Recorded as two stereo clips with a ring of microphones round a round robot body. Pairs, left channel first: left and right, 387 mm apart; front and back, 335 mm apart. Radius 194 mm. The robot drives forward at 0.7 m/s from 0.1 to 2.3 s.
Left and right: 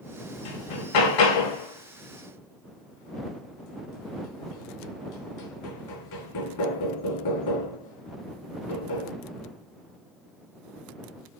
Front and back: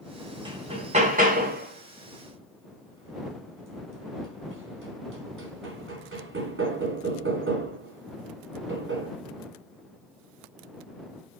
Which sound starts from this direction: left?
Hammering, at 0.5 s.